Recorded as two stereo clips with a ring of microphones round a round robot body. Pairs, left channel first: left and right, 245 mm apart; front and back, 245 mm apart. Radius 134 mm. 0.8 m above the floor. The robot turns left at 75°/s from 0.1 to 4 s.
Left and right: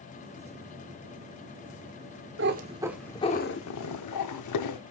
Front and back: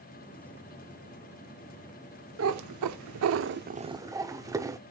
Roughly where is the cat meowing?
Behind right.